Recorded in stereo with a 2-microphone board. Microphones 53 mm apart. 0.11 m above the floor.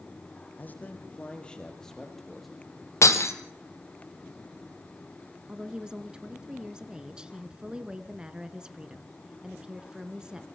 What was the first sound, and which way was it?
A man speaking, 35° left (ahead or behind).